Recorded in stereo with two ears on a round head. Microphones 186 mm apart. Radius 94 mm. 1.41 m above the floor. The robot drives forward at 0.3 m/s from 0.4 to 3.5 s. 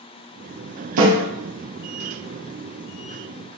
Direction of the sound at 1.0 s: 70° right (ahead or behind).